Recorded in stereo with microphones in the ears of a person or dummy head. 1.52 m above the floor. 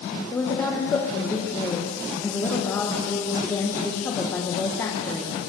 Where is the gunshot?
I don't hear a gunshot.